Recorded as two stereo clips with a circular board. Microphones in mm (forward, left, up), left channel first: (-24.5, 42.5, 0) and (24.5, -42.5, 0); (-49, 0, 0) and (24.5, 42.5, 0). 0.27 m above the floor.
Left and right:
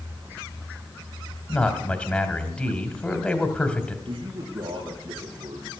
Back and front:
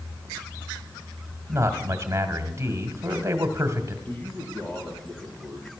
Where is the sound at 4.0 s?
80° right, 4.5 m.